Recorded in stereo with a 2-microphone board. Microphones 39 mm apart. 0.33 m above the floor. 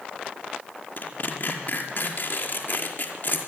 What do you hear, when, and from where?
1.0 s tearing paper: 45° left (ahead or behind), 5 m